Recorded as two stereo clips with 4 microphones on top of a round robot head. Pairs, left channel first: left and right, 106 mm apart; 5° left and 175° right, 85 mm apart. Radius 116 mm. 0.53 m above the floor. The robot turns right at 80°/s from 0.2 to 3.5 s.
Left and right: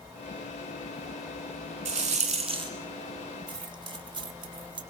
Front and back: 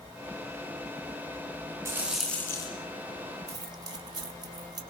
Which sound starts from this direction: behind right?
Keys jangling, at 3.5 s.